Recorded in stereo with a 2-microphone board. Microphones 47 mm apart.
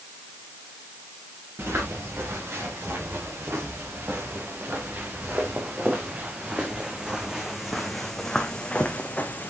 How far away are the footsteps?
About 6 m.